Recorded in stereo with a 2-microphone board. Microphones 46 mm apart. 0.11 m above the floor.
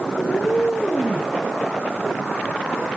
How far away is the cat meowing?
About 5 m.